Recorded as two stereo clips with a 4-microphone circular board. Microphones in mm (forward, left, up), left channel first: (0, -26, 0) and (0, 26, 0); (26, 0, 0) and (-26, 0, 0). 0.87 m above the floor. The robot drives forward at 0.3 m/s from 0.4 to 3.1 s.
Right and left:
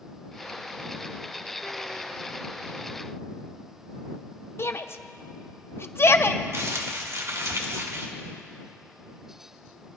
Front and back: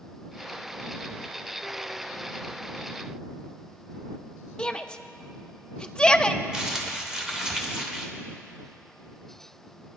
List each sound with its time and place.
4.6 s a shout: 70° right, 0.6 m
6.5 s crumpling: 100° left, 1.2 m